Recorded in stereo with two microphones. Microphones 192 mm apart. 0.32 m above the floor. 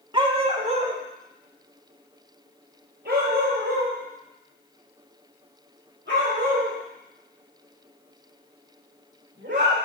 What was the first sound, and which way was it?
A dog barking, 25° right (ahead or behind).